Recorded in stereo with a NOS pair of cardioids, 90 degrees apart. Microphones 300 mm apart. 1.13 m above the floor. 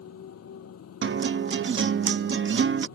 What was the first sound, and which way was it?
A motorcycle, 55° left.